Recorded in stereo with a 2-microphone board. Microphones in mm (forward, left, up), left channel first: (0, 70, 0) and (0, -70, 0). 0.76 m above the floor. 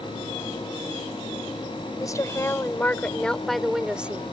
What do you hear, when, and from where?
2.0 s a woman speaking: 25° left (ahead or behind); by 4.3 s 15° right (ahead or behind)